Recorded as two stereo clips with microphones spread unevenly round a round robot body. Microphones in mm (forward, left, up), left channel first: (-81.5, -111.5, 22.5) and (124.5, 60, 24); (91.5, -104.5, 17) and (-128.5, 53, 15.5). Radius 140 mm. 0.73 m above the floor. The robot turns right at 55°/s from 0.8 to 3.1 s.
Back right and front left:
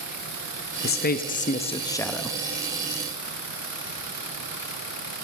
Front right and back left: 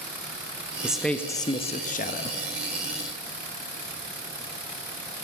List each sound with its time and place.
0.8 s a man speaking: 130° right, 0.7 m; by 2.4 s 50° right, 0.7 m